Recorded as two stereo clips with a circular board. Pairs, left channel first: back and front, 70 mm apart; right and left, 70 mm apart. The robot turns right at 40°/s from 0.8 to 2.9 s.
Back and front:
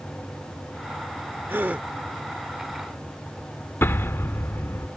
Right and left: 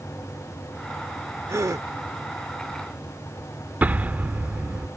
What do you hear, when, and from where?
1.5 s a gasp: 50° left; by 1.9 s 70° left
3.8 s an explosion: 145° left